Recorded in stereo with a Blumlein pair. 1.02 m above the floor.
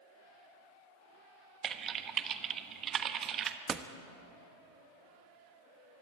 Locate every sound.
1.6 s typing on a keyboard: 25° right, 1.2 m
3.7 s a door slam: 15° right, 1.3 m